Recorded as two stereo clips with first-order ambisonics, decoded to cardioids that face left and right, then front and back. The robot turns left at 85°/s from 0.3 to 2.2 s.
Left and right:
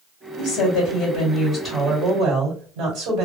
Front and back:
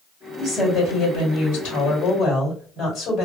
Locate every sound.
0.4 s a woman speaking: 100° left, 2 m; by 3.2 s 55° right, 2 m